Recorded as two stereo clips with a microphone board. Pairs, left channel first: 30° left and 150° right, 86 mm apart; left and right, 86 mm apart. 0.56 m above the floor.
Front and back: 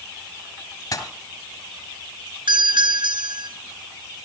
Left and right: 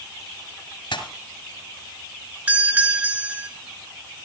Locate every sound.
0.9 s a pop: 70° left, 2.5 m
2.5 s a doorbell: 155° right, 4.5 m